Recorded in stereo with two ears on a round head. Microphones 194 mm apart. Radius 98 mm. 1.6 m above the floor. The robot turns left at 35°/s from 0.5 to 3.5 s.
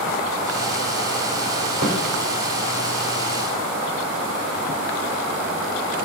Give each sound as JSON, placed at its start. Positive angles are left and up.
{"t": 1.8, "sound": "a snare drum", "side_deg": -35, "distance_m": 2.5}